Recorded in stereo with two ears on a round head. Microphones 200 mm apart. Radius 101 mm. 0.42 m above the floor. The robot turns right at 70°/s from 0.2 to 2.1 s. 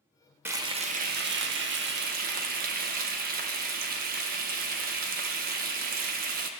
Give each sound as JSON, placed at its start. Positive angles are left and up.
{"t": 0.5, "sound": "frying", "azimuth_deg": -165, "distance_m": 0.6}